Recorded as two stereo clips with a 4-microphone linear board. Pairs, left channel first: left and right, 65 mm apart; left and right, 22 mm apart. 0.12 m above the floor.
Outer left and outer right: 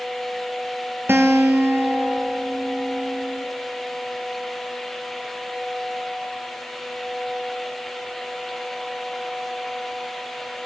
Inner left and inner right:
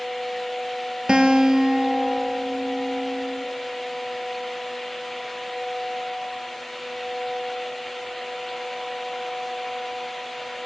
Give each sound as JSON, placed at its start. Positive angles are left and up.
{"t": 1.1, "sound": "a guitar", "side_deg": -35, "distance_m": 1.0}